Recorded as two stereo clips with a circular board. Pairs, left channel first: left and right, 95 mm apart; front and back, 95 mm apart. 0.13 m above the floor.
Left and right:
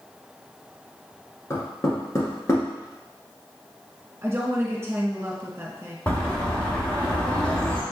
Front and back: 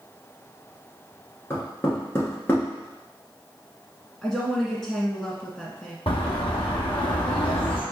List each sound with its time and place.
1.5 s knocking: 50° left, 1.3 m
4.2 s a woman speaking: 80° right, 1.4 m
6.1 s a bird: 15° left, 1.2 m